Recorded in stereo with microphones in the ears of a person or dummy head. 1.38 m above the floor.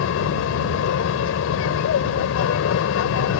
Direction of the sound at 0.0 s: 70° left (ahead or behind).